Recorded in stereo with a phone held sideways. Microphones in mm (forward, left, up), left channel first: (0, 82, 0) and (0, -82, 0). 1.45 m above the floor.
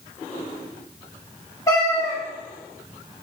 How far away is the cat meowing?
About 0.9 m.